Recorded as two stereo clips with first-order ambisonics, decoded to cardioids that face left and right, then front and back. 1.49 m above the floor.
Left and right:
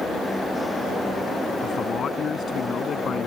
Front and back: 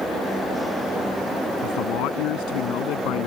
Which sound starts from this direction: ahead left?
A man speaking, at 1.6 s.